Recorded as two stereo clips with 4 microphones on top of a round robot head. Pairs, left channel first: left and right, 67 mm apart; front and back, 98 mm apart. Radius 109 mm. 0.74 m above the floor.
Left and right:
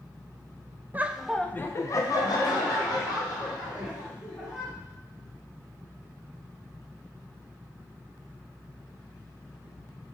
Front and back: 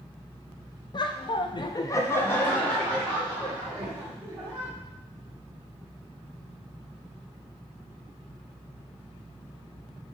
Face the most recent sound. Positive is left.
turn(degrees=90)